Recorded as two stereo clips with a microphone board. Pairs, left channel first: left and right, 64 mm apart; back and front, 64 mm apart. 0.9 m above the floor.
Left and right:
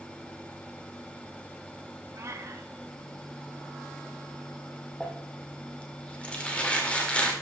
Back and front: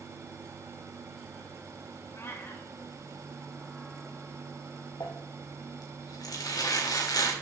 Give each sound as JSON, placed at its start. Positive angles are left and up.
{"t": 2.1, "sound": "a cat meowing", "azimuth_deg": -130, "distance_m": 1.6}
{"t": 5.0, "sound": "crumpling", "azimuth_deg": 160, "distance_m": 2.0}